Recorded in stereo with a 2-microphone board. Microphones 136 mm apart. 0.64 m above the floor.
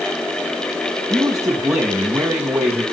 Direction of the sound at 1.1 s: 25° right (ahead or behind).